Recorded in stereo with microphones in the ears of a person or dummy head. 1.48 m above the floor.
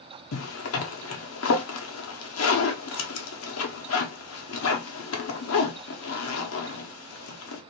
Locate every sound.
0.3 s a zipper: 80° left, 0.9 m